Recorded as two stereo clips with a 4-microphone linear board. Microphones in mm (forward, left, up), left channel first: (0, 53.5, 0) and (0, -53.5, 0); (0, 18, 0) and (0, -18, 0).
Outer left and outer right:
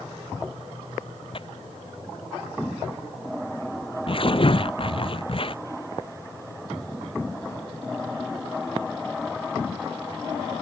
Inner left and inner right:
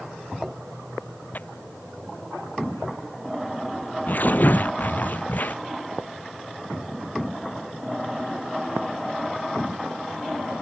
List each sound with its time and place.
1.3 s tearing paper: 55° left (ahead or behind)